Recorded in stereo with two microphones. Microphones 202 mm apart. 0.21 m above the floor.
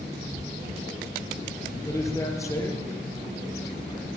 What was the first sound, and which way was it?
A man speaking, 15° left (ahead or behind).